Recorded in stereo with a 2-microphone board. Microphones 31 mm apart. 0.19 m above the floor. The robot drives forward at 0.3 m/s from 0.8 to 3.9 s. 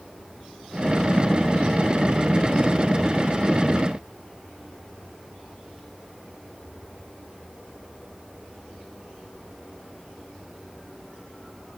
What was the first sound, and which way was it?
Only background noise.